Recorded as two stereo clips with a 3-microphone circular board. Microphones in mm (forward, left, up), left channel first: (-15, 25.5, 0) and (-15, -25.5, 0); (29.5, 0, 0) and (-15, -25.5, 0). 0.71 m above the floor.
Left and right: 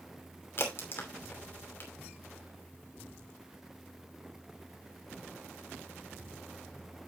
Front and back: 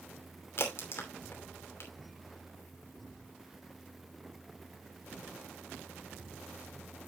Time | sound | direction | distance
0.6 | a crack | 60° left | 2.5 m